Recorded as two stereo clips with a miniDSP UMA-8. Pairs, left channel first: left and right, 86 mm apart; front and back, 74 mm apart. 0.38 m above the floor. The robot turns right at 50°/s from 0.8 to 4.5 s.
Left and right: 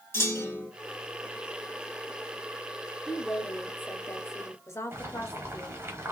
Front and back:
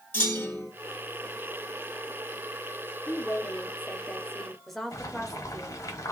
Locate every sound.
0.1 s a clunk: 50° left, 1.7 m
3.1 s a woman speaking: 15° left, 0.9 m; by 5.8 s 85° left, 0.9 m
4.9 s boiling: 30° right, 1.1 m